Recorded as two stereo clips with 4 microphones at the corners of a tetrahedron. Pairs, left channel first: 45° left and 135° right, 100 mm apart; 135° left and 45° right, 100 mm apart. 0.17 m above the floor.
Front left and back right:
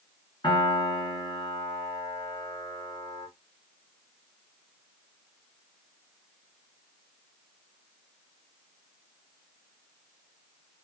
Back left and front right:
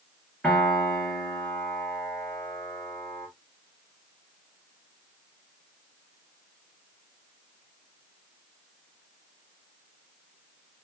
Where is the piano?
60° left, 2.5 m.